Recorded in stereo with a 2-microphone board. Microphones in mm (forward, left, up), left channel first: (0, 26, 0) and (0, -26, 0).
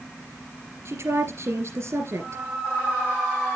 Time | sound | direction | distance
0.8 | a woman speaking | 55° right (ahead or behind) | 2.5 m